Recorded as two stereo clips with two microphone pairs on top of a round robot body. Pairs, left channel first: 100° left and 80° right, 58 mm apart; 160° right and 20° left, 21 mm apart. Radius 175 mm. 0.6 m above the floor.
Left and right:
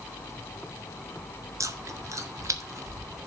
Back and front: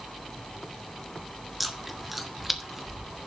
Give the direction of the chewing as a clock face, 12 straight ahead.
2 o'clock.